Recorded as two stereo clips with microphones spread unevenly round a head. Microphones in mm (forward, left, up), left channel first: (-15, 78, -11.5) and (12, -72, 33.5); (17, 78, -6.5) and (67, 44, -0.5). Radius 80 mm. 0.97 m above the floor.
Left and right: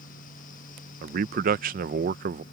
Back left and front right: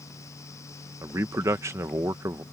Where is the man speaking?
60° right.